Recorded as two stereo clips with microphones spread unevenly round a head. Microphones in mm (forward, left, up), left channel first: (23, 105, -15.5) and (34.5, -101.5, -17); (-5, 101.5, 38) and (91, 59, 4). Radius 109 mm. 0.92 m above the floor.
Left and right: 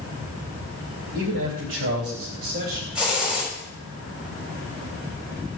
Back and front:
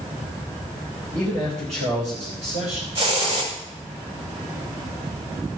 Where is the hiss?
Straight ahead, 6 m.